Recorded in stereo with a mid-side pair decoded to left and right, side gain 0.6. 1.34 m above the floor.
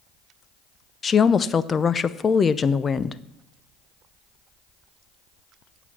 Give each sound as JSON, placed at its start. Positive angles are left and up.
{"t": 1.0, "sound": "a woman speaking", "azimuth_deg": 30, "distance_m": 0.6}